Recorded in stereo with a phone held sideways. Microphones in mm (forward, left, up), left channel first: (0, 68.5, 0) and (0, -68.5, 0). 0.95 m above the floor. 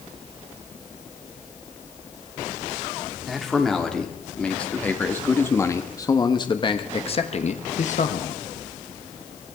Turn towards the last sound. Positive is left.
turn(degrees=65)  # may be behind; listen again after turning